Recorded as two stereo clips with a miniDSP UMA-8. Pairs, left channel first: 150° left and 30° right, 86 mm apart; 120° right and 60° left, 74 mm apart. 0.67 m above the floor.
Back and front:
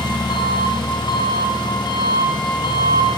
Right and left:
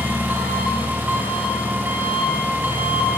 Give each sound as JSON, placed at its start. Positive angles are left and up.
{"t": 0.0, "sound": "an engine running", "azimuth_deg": 125, "distance_m": 3.0}